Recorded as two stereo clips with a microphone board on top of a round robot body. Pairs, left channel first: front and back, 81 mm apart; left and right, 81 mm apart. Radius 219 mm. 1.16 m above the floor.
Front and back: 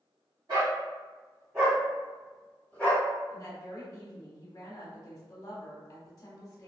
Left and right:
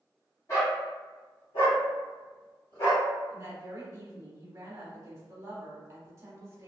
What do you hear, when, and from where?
0.5 s a dog barking: 140° left, 1.1 m; by 3.0 s 65° left, 1.4 m
3.3 s a woman speaking: 40° right, 1.1 m